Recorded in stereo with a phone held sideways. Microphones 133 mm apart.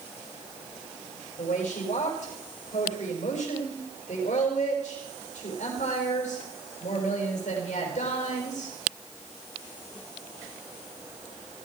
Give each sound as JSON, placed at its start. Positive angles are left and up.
{"t": 1.4, "sound": "a woman speaking", "side_deg": 85, "distance_m": 5.5}